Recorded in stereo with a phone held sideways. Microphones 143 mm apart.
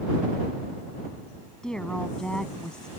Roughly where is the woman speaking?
Centre.